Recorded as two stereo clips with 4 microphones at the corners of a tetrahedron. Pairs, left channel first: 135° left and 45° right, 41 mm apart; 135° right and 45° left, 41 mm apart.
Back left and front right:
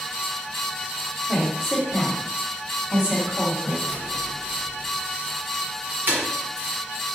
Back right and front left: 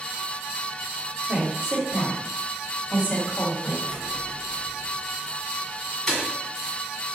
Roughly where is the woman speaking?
Ahead left.